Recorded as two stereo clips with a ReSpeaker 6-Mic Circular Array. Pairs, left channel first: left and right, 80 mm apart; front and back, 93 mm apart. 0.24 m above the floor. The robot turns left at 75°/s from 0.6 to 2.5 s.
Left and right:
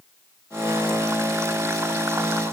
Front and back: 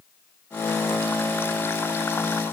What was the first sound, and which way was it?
Only background noise.